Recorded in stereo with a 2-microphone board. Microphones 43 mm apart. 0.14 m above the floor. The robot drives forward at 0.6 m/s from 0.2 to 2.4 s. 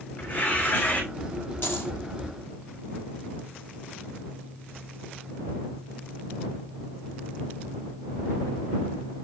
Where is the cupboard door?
No cupboard door in this recording.